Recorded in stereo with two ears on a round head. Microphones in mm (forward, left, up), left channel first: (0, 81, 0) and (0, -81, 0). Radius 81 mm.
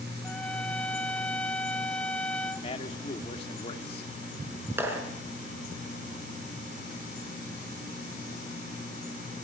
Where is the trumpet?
5° left (ahead or behind), 0.5 m.